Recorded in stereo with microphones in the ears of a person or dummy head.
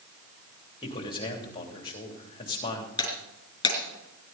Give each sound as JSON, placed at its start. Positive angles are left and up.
{"t": 0.8, "sound": "a man speaking", "side_deg": 30, "distance_m": 3.0}
{"t": 3.0, "sound": "breaking glass", "side_deg": 25, "distance_m": 4.5}